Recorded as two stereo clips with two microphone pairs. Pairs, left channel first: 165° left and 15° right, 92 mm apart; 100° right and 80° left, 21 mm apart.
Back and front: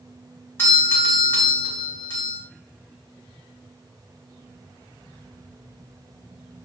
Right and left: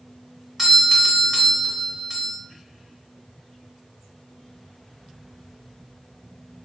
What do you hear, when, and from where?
0.6 s a doorbell: 135° left, 1.5 m